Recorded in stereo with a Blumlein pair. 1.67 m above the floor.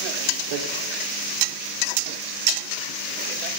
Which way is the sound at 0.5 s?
50° right.